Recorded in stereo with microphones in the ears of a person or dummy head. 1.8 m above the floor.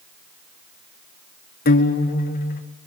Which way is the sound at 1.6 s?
45° left (ahead or behind).